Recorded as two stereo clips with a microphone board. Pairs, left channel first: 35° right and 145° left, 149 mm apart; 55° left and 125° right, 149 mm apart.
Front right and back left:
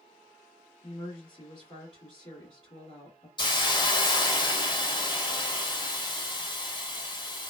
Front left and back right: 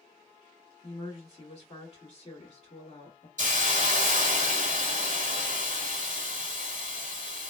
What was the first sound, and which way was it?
A woman speaking, 10° left.